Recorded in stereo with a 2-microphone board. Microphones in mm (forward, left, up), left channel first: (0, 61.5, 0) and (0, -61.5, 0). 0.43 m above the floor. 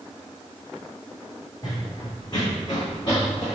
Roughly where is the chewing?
No chewing in this recording.